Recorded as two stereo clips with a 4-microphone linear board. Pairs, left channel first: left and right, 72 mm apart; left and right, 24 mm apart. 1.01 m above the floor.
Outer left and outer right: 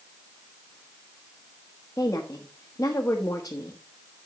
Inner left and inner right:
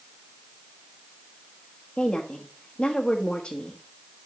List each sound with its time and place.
2.0 s a woman speaking: 40° left (ahead or behind), 1.1 m